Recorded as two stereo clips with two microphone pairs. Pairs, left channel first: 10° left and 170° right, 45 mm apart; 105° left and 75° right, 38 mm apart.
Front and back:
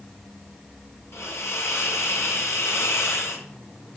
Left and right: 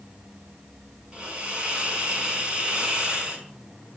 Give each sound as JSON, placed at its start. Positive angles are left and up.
{"t": 1.1, "sound": "a hiss", "azimuth_deg": -10, "distance_m": 5.0}